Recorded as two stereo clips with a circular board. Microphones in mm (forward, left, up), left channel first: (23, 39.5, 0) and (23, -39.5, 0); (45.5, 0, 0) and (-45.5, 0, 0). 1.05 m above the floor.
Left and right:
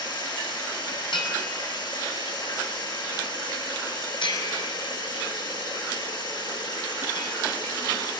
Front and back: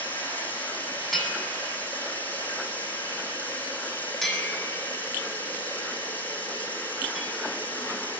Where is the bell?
85° left, 7.5 m.